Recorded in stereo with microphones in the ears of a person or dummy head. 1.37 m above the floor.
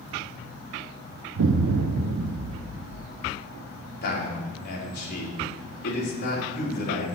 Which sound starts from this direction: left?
A man speaking, at 4.0 s.